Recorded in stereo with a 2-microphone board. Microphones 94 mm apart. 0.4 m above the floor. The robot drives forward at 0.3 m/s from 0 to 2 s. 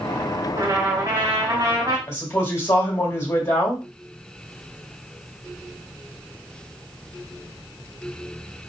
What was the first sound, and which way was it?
A trumpet, 45° right (ahead or behind).